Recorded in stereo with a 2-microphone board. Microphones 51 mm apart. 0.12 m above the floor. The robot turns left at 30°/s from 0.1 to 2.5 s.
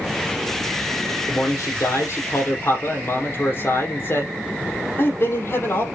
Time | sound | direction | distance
1.3 | a man speaking | 95° left | 4.5 m